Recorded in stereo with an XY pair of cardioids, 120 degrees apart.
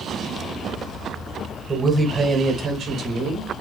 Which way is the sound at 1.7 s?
15° right.